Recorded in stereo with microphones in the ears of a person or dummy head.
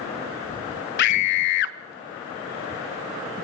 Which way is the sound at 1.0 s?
60° left (ahead or behind).